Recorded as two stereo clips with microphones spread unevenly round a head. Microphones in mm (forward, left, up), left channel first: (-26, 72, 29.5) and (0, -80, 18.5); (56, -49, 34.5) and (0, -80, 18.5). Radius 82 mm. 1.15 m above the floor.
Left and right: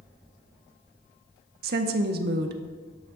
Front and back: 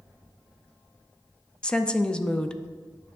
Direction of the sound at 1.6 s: 50° right.